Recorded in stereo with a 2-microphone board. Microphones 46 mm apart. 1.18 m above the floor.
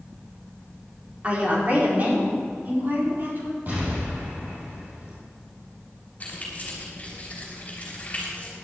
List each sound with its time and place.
1.2 s a woman speaking: 30° right (ahead or behind), 3.5 m; by 3.6 s 50° right (ahead or behind), 5 m
3.7 s an explosion: 40° right (ahead or behind), 5.5 m
6.2 s keys jangling: 30° left (ahead or behind), 4 m